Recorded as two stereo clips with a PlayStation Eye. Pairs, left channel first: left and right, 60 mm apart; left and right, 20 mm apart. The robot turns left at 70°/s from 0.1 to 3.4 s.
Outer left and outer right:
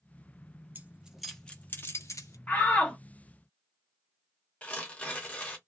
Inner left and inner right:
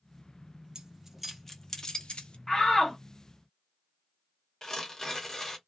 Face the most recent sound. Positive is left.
turn(degrees=25)  # may be behind; listen again after turning